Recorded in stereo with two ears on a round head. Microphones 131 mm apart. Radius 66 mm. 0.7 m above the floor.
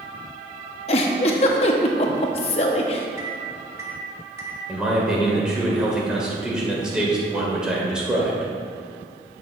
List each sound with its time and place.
0.9 s a giggle: 40° left (ahead or behind), 0.8 m
3.2 s a microwave: 20° right (ahead or behind), 1.0 m
4.7 s a man speaking: 5° right (ahead or behind), 2 m